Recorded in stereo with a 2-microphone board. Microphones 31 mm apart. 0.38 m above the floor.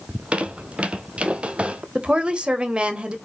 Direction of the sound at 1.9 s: 35° right (ahead or behind).